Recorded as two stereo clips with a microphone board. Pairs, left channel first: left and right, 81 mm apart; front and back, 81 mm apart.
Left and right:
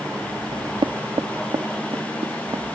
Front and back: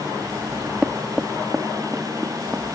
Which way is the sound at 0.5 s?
100° right.